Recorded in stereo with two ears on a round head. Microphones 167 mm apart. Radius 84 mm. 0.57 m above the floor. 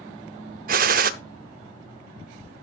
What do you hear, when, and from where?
0.7 s a gunshot: 45° right (ahead or behind), 0.6 m